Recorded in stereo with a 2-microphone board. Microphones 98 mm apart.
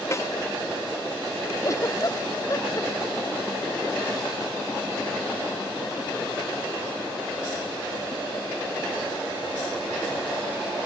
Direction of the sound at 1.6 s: 35° left (ahead or behind).